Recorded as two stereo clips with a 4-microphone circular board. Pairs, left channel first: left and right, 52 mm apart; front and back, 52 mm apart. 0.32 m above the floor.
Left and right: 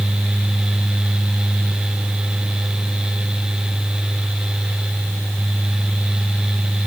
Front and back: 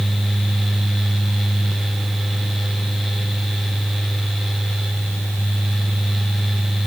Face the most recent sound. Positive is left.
No sound to turn to.